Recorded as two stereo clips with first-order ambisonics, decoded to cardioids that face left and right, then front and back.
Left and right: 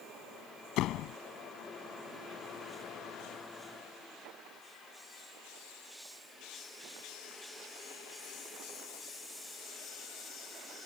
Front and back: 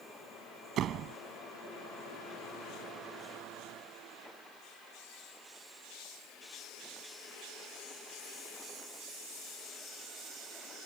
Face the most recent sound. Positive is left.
turn(degrees=130)